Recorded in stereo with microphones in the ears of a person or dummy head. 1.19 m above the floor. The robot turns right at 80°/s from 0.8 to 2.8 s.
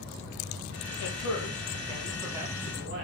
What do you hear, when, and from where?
1.0 s a man speaking: 85° left, 0.9 m; by 3.0 s 130° right, 0.9 m